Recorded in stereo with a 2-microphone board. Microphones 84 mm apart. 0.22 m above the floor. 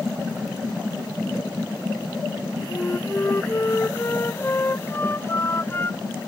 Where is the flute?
30° left (ahead or behind).